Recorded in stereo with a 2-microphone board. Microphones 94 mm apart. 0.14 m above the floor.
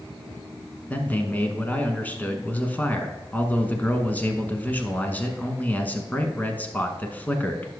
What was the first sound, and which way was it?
A man speaking, 20° left (ahead or behind).